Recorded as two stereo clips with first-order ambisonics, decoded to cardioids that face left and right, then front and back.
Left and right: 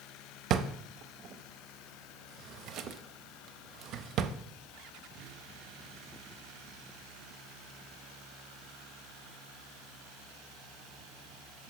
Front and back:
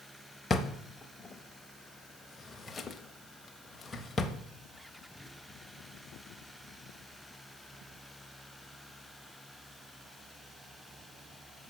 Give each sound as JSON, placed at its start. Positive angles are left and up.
{"t": 0.5, "sound": "a drawer", "azimuth_deg": -70, "distance_m": 0.6}